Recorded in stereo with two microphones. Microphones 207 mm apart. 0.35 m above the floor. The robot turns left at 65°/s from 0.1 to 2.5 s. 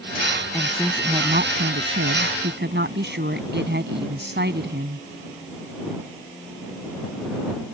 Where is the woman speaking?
10° left; by 5.0 s 120° right.